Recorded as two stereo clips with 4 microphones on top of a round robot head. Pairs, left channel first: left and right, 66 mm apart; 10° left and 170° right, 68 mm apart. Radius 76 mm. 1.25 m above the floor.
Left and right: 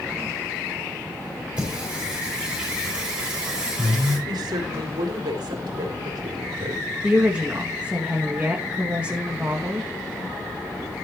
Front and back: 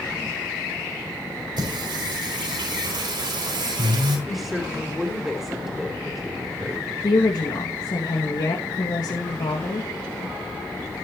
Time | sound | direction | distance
1.6 | singing | 170° right | 5.5 m
4.3 | a woman speaking | 85° right | 3.5 m
7.0 | a woman speaking | 20° right | 2 m